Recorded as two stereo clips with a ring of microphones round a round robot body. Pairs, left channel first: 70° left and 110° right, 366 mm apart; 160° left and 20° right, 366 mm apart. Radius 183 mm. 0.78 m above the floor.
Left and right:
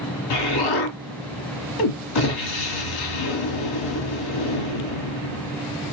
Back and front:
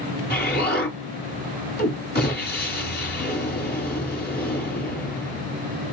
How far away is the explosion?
About 1.5 m.